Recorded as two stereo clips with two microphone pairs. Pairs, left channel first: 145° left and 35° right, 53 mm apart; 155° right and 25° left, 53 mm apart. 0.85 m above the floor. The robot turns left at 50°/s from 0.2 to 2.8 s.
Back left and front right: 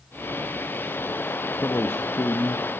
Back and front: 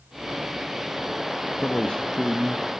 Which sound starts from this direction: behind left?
A man speaking, at 1.6 s.